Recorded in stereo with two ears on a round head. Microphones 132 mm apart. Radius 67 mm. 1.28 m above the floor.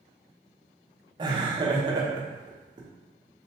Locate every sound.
1.2 s laughter: 30° right (ahead or behind), 0.8 m